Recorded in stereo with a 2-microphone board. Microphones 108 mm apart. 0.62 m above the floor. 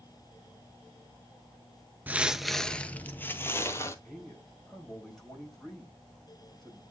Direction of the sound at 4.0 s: Centre (ahead or behind).